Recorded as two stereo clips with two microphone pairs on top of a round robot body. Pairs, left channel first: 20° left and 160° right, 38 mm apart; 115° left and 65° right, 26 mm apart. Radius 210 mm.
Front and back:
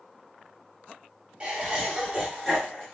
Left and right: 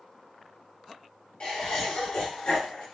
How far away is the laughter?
About 1.5 m.